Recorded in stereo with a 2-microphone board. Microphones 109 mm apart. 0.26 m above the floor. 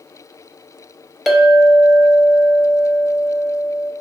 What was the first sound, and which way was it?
A clink, centre (ahead or behind).